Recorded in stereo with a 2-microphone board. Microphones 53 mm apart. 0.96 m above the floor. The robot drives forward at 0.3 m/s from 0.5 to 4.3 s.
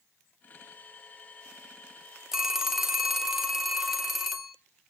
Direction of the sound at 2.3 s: 10° right (ahead or behind).